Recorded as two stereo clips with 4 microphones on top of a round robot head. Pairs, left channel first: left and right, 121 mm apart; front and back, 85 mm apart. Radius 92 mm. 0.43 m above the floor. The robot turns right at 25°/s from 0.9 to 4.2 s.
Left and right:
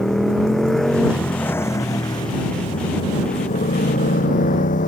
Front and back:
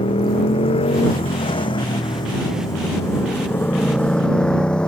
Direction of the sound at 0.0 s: 5° left.